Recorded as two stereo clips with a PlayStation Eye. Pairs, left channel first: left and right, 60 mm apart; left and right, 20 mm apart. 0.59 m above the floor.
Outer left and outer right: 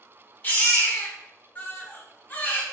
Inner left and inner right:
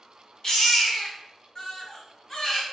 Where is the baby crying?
35° left (ahead or behind), 1.0 m.